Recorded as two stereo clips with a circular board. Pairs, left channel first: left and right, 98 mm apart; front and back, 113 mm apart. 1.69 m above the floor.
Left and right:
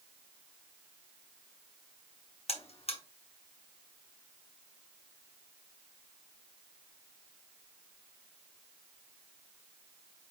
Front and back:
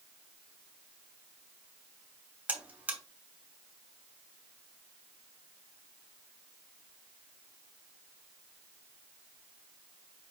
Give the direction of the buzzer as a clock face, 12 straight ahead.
9 o'clock.